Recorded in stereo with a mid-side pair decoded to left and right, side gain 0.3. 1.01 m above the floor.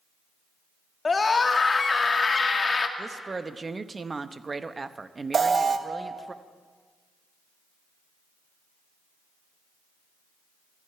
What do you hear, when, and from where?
1.1 s a scream: 45° left, 1.9 m
3.0 s a woman speaking: 40° right, 0.9 m
5.3 s an alarm: 55° right, 1.2 m